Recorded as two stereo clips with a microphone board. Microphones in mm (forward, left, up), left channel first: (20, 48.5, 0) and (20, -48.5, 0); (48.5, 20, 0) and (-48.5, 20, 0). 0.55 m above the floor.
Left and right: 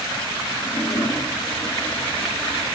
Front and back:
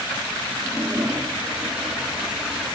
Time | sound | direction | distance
0.6 | a toilet flushing | 100° left | 1.6 m